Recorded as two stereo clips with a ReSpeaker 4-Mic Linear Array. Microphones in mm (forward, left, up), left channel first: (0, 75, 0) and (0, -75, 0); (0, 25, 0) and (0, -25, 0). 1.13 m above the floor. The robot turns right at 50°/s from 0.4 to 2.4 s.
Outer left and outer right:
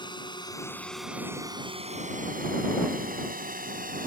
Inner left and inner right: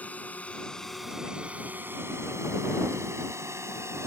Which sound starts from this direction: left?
A drone, at 0.0 s.